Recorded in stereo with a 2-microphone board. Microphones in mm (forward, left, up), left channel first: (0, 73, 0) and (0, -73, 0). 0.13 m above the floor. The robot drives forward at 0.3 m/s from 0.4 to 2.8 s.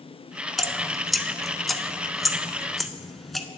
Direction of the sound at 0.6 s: Centre (ahead or behind).